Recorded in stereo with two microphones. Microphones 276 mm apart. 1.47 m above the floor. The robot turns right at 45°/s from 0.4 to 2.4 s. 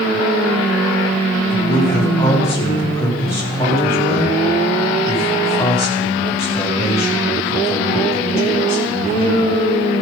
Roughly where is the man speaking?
Behind left.